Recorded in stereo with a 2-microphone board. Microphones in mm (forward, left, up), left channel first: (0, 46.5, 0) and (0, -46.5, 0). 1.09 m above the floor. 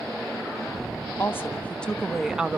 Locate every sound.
1.2 s a woman speaking: 30° left (ahead or behind), 1.2 m; by 2.6 s 15° right (ahead or behind), 1.0 m